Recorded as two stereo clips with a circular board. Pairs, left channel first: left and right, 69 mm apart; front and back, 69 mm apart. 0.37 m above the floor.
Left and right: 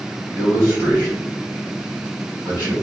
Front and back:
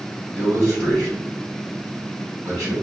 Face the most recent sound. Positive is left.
turn(degrees=-145)